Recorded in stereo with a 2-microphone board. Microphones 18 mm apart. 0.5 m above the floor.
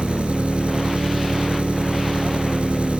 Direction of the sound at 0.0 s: 80° right.